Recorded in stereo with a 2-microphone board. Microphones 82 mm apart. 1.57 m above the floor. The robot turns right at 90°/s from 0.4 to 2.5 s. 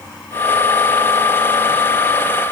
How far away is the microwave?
No microwave in this recording.